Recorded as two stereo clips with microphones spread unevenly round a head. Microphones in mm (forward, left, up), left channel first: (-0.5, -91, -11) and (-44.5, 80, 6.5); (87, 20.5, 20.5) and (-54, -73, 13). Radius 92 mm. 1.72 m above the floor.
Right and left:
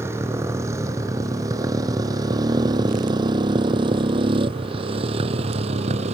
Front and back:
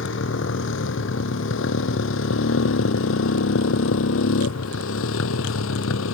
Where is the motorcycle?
25° left; by 6.1 s 45° left.